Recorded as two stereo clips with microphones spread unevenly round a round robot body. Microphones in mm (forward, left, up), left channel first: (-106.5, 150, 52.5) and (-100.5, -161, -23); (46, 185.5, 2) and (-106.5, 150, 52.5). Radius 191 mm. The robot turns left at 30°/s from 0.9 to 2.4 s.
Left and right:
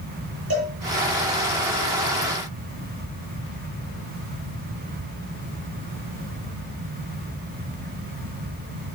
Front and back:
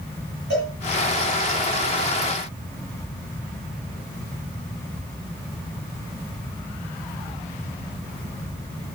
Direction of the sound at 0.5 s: 135° right.